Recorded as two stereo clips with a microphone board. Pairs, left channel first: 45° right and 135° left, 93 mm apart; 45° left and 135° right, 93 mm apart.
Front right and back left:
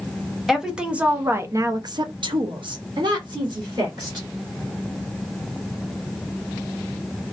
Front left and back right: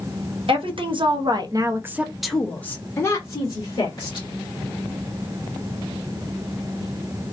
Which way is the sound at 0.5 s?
140° right.